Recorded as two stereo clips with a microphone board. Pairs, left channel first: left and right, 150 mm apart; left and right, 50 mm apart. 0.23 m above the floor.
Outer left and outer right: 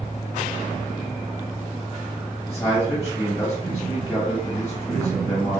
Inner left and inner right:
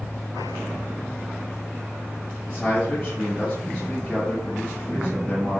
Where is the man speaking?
20° left (ahead or behind), 1.3 m.